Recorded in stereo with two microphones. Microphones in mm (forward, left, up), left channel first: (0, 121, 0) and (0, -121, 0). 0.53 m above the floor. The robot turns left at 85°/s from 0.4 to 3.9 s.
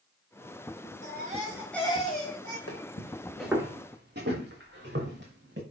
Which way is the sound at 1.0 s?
125° right.